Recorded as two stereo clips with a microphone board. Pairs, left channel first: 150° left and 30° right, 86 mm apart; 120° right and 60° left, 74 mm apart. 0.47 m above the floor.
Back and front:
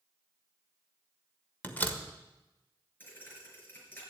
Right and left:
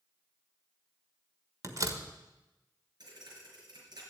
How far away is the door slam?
About 1.4 m.